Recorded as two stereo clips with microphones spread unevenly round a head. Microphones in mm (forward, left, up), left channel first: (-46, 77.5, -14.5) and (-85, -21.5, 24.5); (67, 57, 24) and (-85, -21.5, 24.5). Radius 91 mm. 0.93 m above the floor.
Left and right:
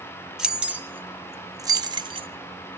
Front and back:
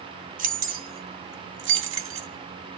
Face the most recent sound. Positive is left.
turn(degrees=-150)